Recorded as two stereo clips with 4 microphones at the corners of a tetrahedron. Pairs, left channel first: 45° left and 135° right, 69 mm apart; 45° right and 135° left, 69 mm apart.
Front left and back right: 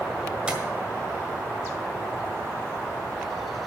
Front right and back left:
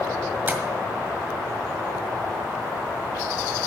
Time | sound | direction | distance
0.5 | tapping | 160° left | 1.7 m